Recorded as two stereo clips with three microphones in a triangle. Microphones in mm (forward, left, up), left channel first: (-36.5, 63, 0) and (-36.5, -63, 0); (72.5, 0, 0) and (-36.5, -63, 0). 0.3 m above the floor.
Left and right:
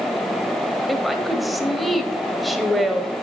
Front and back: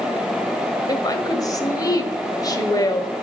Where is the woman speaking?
Straight ahead, 1.2 m.